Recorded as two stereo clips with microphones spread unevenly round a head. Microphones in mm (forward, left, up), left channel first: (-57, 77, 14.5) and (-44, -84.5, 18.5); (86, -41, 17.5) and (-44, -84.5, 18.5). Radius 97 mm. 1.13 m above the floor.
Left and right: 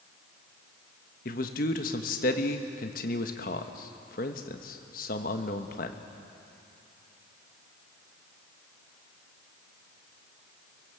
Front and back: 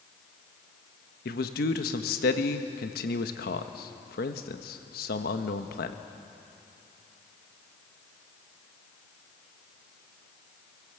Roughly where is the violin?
No violin in this recording.